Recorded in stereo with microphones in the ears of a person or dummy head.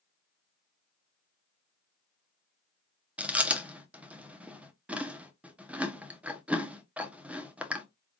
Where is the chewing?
10° right (ahead or behind), 0.9 m.